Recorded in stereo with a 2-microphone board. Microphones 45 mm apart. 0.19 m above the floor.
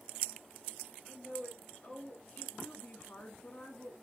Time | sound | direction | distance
1.1 | a woman speaking | 20° left (ahead or behind) | 3 m